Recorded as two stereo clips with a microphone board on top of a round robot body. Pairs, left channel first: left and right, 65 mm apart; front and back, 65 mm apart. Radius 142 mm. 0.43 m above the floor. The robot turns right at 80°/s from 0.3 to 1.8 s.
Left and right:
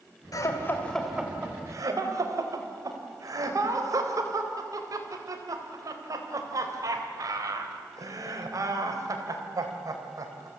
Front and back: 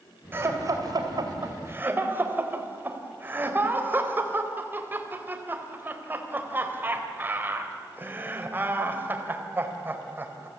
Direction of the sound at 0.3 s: 120° left.